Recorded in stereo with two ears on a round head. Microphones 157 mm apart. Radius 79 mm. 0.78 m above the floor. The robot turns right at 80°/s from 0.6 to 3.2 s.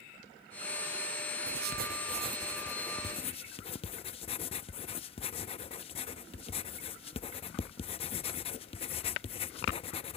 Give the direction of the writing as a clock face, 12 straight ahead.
3 o'clock.